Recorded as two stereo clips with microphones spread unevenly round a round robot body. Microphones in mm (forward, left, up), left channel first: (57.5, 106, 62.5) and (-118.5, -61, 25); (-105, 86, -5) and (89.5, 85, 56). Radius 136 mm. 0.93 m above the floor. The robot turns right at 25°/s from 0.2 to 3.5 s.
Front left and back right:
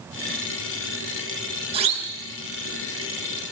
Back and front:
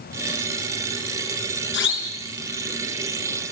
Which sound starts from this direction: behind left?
A siren, at 1.7 s.